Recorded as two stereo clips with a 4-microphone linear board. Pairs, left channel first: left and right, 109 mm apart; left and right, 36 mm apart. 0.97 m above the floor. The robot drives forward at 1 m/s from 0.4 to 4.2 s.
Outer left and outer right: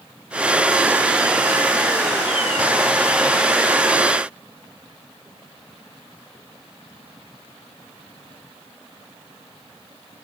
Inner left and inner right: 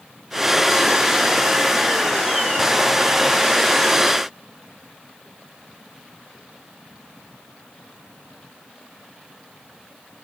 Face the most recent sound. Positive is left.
No sound to turn to.